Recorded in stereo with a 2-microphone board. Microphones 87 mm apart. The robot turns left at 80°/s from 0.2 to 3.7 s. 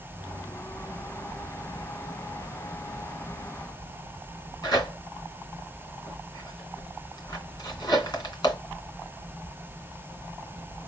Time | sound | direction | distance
4.6 | tearing paper | 50° left (ahead or behind) | 2.5 m